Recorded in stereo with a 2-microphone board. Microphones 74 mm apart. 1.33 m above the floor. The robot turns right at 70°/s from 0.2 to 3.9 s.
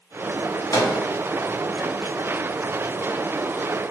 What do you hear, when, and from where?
0.7 s a microwave: 50° left (ahead or behind), 0.5 m; by 0.9 s 65° left (ahead or behind), 0.5 m